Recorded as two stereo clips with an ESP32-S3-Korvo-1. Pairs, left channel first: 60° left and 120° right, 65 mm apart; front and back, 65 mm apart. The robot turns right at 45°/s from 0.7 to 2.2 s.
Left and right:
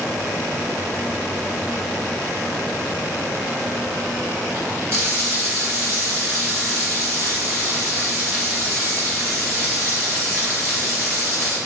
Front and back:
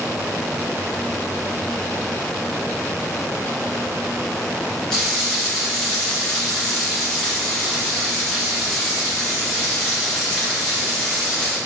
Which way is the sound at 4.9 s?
80° right.